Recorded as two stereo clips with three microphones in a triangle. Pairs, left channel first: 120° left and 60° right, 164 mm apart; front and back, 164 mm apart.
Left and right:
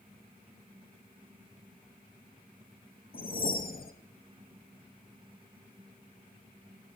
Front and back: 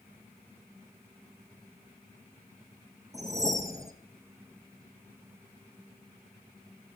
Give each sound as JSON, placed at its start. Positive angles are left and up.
{"t": 3.1, "sound": "a whoosh", "azimuth_deg": 110, "distance_m": 0.7}